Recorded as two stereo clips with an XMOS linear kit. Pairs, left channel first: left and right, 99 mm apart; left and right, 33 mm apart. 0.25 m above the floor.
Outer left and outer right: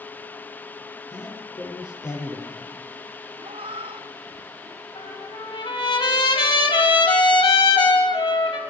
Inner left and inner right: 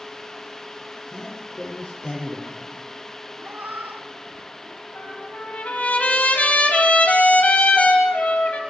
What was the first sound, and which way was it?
A man speaking, 35° left (ahead or behind).